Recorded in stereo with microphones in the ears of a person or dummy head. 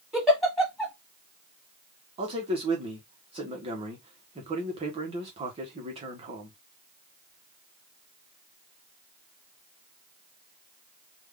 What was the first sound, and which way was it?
A giggle, centre (ahead or behind).